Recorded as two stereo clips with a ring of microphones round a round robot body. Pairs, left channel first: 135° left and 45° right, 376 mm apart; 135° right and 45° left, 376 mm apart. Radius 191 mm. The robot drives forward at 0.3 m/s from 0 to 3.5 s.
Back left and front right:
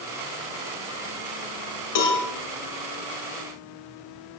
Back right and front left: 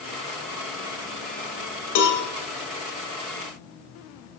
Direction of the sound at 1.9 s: Straight behind.